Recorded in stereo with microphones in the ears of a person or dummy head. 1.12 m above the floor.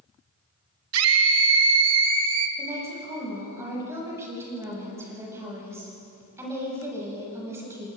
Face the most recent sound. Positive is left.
turn(degrees=-20)  # may be behind; listen again after turning